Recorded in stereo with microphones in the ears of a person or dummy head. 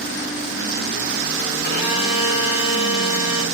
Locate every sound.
1.6 s a violin: 45° left (ahead or behind), 4 m